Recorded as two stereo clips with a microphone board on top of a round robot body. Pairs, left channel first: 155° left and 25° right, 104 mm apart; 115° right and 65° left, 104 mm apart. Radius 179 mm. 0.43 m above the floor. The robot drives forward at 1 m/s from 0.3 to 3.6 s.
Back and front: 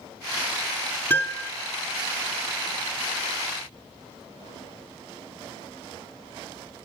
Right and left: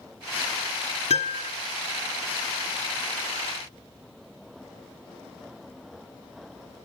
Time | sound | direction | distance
1.1 | a piano | 130° right | 2 m